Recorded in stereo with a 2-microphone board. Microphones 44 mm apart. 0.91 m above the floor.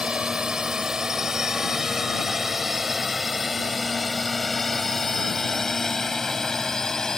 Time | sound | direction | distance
0.0 | a drone | 20° right (ahead or behind) | ?